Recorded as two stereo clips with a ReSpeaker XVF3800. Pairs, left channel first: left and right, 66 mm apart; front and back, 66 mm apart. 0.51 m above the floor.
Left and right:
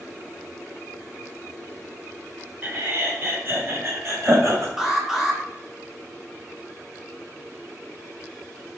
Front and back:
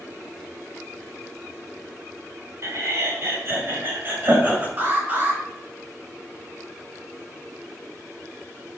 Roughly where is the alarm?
Behind.